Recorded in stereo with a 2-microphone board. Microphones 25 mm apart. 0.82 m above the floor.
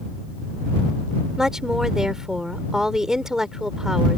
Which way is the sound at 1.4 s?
20° right (ahead or behind).